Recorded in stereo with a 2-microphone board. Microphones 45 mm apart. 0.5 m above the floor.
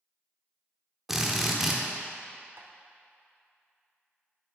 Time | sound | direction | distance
1.1 | a drill | 5° right (ahead or behind) | 0.8 m
2.6 | tapping | 55° right (ahead or behind) | 0.8 m